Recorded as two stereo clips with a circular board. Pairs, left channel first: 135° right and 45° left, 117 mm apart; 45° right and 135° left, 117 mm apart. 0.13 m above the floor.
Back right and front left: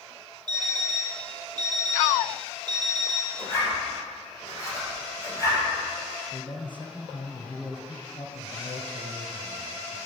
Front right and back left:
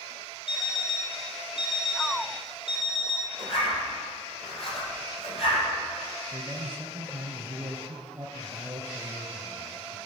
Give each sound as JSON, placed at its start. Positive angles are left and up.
{"t": 0.5, "sound": "an alarm clock", "azimuth_deg": -5, "distance_m": 2.5}
{"t": 3.4, "sound": "a zipper", "azimuth_deg": -75, "distance_m": 4.5}
{"t": 6.3, "sound": "a man speaking", "azimuth_deg": -160, "distance_m": 1.9}